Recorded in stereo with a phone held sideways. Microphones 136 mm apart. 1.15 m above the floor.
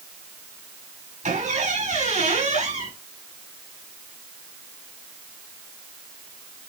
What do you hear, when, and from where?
1.2 s a squeak: 65° right (ahead or behind), 5 m